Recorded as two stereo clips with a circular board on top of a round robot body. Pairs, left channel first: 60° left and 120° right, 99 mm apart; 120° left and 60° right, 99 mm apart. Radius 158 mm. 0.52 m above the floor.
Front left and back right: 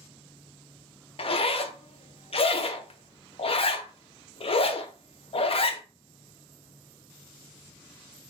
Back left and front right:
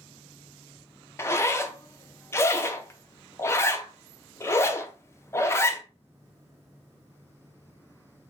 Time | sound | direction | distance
1.2 | a zipper | 60° left | 0.7 m